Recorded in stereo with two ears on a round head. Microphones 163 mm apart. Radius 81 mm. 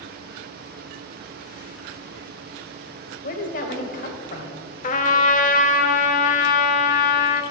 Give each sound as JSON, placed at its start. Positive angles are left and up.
{"t": 3.2, "sound": "a woman speaking", "side_deg": 45, "distance_m": 1.9}
{"t": 4.8, "sound": "a trumpet", "side_deg": 40, "distance_m": 1.2}